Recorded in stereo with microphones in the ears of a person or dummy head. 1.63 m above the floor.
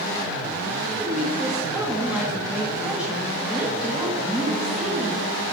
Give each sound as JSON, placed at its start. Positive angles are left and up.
{"t": 0.9, "sound": "a woman speaking", "side_deg": -5, "distance_m": 1.8}